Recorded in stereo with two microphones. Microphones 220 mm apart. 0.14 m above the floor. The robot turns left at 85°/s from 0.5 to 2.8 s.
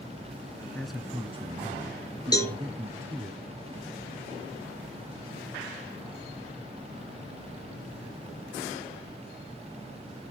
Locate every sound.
0.8 s a man speaking: 10° left, 1.4 m; by 3.3 s 165° right, 1.4 m
2.3 s a cowbell: 20° left (ahead or behind), 2.5 m; by 2.5 s centre (ahead or behind), 2.5 m